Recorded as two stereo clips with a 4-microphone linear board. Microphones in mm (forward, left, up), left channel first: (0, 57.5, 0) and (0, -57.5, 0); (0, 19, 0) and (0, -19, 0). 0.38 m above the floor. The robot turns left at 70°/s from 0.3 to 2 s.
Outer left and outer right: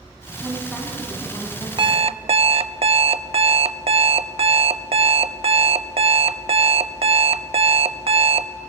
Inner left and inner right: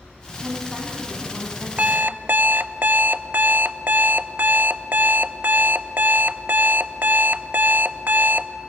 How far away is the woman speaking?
About 3 m.